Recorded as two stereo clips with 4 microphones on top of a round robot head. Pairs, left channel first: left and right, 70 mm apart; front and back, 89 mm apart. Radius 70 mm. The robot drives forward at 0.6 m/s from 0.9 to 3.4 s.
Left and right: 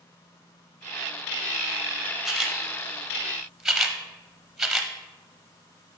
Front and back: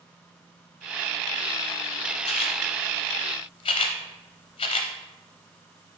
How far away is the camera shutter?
About 1.1 m.